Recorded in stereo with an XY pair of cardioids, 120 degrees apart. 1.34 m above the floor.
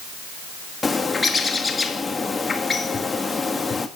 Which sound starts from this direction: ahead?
A bird, at 0.8 s.